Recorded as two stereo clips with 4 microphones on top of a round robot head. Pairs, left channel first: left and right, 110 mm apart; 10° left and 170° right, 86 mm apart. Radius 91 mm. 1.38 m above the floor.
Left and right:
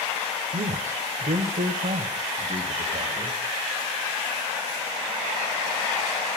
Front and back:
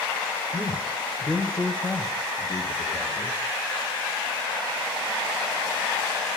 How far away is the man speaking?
About 0.7 m.